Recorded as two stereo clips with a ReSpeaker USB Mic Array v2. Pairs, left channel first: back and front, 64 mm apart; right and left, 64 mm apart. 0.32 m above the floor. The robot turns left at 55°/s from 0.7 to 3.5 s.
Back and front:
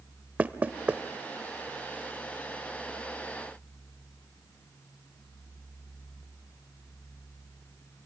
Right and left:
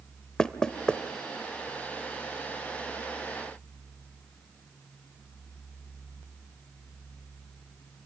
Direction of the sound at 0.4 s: 30° right.